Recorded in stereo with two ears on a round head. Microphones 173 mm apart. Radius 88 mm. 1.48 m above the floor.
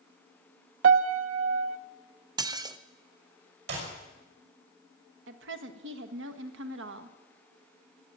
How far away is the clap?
About 5.5 m.